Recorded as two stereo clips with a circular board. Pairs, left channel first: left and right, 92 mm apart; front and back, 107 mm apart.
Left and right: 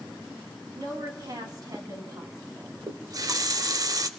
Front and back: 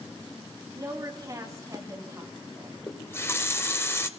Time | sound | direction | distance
0.8 | a woman speaking | 130° right | 3 m
2.9 | a running tap | 60° right | 0.8 m